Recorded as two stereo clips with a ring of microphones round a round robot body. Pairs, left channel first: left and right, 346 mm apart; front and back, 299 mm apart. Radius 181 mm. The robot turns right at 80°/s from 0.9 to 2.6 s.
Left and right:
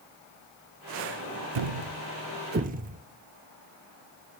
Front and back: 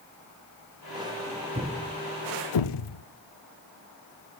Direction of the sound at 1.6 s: 110° right.